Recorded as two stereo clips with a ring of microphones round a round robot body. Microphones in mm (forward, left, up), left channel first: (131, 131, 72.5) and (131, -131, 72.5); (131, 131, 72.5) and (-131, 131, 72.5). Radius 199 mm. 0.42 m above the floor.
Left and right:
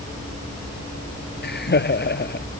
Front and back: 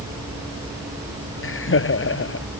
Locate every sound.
1.4 s laughter: 40° left